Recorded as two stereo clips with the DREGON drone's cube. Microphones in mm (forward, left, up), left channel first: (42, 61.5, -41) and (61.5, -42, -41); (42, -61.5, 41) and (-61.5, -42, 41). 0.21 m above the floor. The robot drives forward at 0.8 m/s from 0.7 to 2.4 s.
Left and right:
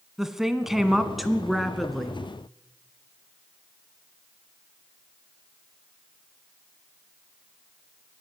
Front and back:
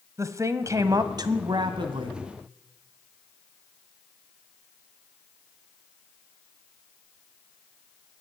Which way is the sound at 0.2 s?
165° right.